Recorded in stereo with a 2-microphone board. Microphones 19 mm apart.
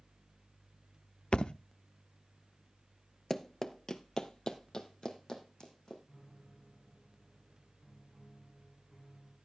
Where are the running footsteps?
10° left (ahead or behind), 0.8 m; by 6.0 s 40° left (ahead or behind), 3 m.